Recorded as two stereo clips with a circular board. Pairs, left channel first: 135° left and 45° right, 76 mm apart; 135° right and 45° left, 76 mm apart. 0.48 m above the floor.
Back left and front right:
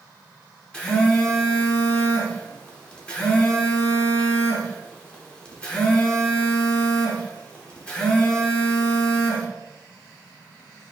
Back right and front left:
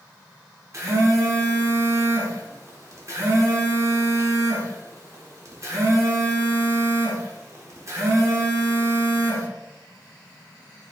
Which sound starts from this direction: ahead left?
A phone buzzing, at 0.7 s.